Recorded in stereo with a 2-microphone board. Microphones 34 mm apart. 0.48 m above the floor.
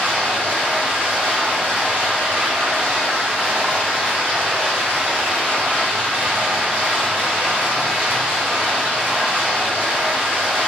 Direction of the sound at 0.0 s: 65° right (ahead or behind).